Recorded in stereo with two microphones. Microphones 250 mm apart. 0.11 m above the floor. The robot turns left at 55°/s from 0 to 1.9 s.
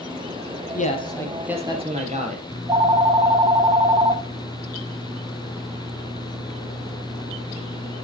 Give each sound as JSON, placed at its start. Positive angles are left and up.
{"t": 0.7, "sound": "a man speaking", "azimuth_deg": 35, "distance_m": 3.0}
{"t": 2.5, "sound": "a phone ringing", "side_deg": -15, "distance_m": 0.8}